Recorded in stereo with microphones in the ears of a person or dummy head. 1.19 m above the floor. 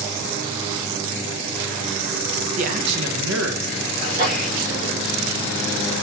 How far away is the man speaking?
About 1.0 m.